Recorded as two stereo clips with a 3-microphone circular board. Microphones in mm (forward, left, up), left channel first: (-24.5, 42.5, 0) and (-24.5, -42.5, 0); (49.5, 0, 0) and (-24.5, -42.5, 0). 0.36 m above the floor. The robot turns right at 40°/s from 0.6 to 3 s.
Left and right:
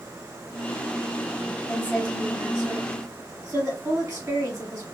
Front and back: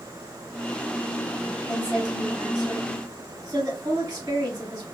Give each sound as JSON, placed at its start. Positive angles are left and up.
{"t": 1.7, "sound": "a woman speaking", "azimuth_deg": 180, "distance_m": 1.9}